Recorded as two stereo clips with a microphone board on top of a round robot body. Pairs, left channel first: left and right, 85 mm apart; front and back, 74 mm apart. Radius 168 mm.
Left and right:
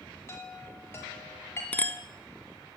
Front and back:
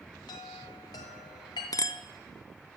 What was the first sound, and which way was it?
A chime, 25° left.